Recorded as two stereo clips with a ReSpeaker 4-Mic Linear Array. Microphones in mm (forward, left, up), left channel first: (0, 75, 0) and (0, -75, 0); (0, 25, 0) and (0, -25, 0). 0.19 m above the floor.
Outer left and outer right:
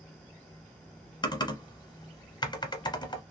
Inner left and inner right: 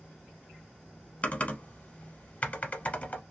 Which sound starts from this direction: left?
Typing on a keyboard, at 1.2 s.